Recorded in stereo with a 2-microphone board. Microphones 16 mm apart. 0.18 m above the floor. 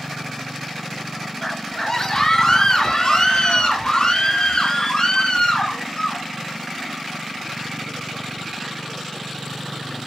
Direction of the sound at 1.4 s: 20° left (ahead or behind).